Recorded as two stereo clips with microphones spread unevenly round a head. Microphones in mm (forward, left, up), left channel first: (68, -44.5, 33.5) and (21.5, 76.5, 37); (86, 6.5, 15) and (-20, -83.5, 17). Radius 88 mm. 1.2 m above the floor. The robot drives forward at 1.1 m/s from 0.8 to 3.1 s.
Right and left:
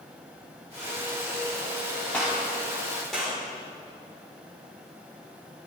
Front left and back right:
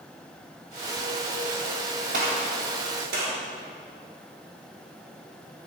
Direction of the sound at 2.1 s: 150° right.